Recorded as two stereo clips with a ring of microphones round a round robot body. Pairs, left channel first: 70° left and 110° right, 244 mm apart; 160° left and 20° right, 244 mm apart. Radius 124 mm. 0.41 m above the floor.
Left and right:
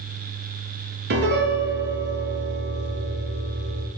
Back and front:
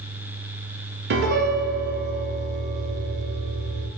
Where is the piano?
65° right, 0.8 m.